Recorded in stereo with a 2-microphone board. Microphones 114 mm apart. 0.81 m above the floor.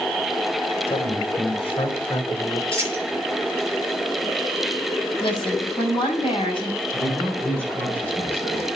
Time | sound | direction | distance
0.9 | a man speaking | 55° left (ahead or behind) | 3 m
2.7 | a dropped coin | 50° left (ahead or behind) | 7 m
5.2 | a woman speaking | 45° left (ahead or behind) | 6.5 m
6.9 | a man speaking | 15° left (ahead or behind) | 6.5 m